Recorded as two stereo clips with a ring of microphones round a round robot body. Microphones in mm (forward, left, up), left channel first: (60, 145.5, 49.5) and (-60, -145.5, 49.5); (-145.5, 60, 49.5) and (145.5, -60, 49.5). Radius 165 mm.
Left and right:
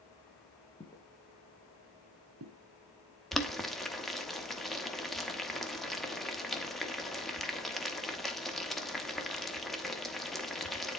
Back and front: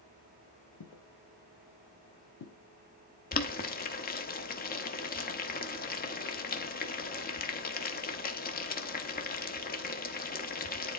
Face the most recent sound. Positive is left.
turn(degrees=155)